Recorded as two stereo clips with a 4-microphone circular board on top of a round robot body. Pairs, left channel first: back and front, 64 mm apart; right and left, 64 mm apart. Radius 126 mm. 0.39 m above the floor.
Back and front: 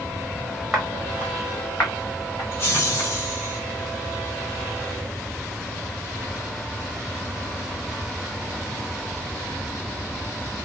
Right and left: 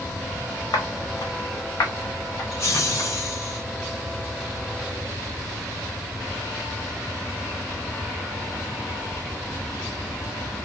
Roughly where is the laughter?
Behind right.